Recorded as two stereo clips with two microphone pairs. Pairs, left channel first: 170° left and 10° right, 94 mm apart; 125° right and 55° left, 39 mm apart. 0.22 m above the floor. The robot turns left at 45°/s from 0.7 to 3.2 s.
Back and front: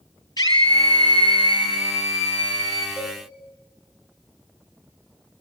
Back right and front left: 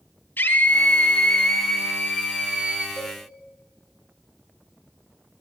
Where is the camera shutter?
I don't hear a camera shutter.